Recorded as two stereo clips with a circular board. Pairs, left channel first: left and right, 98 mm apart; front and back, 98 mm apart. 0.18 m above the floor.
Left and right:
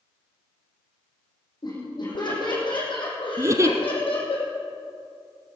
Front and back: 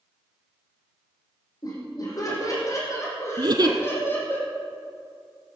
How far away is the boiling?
No boiling in this recording.